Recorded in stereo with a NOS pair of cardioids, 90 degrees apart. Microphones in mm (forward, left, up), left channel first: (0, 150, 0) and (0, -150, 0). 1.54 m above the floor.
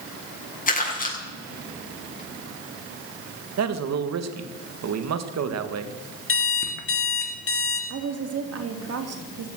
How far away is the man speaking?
About 1.9 m.